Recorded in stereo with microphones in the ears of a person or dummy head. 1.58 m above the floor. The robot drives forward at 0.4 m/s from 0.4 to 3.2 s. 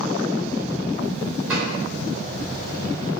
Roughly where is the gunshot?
Centre.